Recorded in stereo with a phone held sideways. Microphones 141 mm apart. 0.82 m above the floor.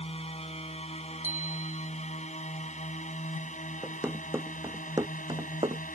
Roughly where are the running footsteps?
Centre.